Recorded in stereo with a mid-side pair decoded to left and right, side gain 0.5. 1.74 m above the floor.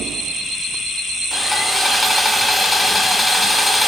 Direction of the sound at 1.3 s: 15° left.